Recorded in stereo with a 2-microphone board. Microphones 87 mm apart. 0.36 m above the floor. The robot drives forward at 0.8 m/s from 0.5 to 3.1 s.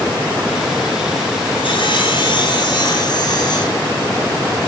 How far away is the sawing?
About 3 m.